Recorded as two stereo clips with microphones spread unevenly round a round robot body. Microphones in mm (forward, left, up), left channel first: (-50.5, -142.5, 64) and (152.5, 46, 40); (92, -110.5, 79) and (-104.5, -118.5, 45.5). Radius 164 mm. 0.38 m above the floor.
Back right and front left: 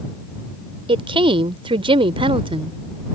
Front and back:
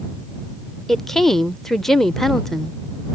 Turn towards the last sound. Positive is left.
turn(degrees=100)